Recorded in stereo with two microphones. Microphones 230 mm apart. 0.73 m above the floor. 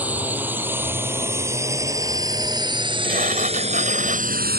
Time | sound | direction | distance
0.0 | a drone | 5° right (ahead or behind) | ?
3.0 | a sliding door | 35° right (ahead or behind) | ?